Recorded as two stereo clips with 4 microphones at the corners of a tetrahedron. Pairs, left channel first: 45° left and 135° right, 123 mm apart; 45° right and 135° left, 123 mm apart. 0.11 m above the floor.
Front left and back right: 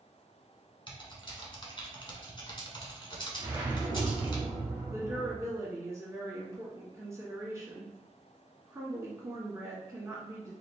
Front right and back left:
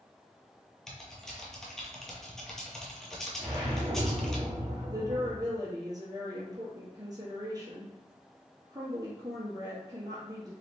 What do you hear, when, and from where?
0.9 s typing on a keyboard: 40° left, 0.8 m
3.4 s a whoosh: 170° left, 1.9 m
4.9 s a woman speaking: 170° left, 1.3 m